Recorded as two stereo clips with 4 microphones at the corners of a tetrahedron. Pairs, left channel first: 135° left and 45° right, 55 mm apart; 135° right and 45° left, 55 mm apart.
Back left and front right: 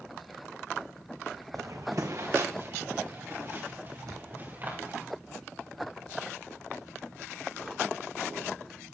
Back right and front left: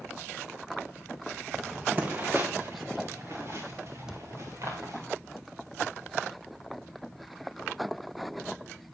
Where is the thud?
35° right, 1.3 m.